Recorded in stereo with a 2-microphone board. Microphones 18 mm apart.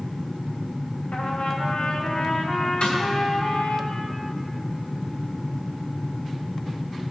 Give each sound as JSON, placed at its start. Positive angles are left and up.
{"t": 1.1, "sound": "a trumpet", "side_deg": 70, "distance_m": 1.5}
{"t": 2.8, "sound": "a snare drum", "side_deg": 75, "distance_m": 2.5}